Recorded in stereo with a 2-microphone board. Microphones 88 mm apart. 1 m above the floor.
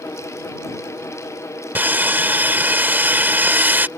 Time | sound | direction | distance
1.8 | sawing | 20° right (ahead or behind) | ?